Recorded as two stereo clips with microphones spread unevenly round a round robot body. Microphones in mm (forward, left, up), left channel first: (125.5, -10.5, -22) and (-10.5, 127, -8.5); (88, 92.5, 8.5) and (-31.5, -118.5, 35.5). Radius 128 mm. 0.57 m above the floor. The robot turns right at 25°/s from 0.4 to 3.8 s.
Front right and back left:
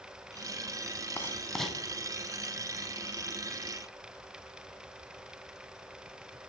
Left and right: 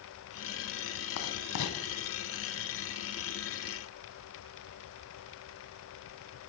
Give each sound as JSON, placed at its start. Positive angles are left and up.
{"t": 1.2, "sound": "writing", "azimuth_deg": 35, "distance_m": 1.4}